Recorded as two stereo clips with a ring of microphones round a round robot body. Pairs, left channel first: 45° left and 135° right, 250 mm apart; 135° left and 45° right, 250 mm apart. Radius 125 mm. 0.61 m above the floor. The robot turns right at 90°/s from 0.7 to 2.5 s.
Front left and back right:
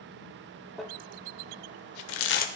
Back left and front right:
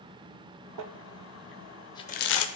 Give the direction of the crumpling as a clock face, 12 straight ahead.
2 o'clock.